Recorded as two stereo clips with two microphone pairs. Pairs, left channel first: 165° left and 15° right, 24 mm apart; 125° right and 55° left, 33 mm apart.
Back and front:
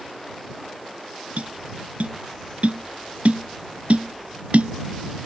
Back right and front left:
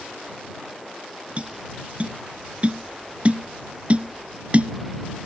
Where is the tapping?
5° left.